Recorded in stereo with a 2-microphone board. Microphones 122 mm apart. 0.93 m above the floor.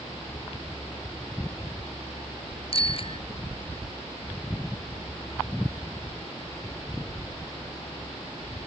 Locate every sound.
2.7 s a bicycle bell: 50° left (ahead or behind)